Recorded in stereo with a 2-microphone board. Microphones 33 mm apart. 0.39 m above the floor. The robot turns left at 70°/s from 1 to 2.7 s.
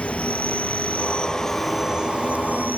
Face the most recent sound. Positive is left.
turn(degrees=-70)